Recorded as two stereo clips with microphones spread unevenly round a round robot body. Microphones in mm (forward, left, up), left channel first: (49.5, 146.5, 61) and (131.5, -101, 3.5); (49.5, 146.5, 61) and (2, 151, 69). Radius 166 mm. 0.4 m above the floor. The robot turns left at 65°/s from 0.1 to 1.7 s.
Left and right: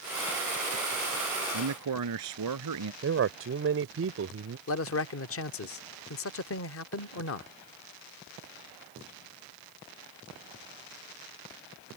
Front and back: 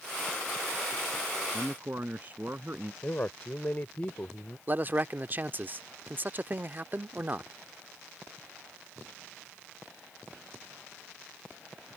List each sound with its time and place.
1.5 s a man speaking: 95° right; by 2.9 s 105° right
3.0 s a man speaking: 60° right
4.7 s a man speaking: 125° left